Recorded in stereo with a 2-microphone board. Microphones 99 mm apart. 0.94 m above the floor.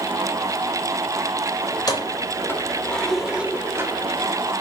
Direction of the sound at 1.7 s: 45° left (ahead or behind).